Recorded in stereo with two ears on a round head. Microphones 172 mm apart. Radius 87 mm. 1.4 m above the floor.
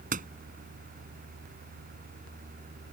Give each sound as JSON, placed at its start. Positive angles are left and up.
{"t": 0.1, "sound": "a door slam", "side_deg": -40}